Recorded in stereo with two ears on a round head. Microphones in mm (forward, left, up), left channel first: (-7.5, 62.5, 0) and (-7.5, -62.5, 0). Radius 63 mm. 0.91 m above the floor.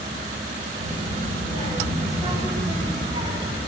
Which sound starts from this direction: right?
A child speaking, at 0.8 s.